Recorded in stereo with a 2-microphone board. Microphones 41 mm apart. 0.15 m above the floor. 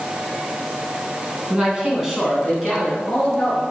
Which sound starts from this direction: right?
A man speaking, at 1.5 s.